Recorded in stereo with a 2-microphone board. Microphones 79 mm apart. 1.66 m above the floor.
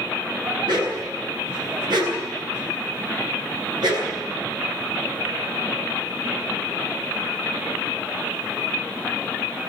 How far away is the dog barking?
About 9.5 m.